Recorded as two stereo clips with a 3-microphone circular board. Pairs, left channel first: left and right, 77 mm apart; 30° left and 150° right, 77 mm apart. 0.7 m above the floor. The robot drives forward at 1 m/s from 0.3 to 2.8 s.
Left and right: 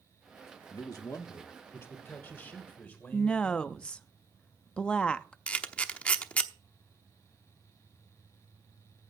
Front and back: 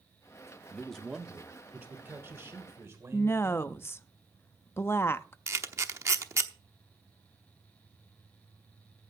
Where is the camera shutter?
165° left, 0.9 m.